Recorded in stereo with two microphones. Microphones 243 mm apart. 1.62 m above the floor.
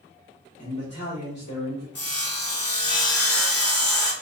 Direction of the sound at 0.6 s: 85° left.